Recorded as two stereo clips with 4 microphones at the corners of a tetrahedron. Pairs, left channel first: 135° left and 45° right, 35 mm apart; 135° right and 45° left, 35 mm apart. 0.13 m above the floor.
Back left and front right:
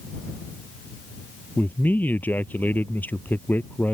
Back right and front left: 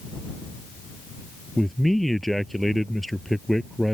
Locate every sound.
1.6 s a man speaking: 140° left